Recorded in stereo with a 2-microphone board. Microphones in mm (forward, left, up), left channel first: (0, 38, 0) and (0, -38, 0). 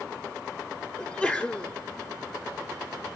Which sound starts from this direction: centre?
A sneeze, at 1.0 s.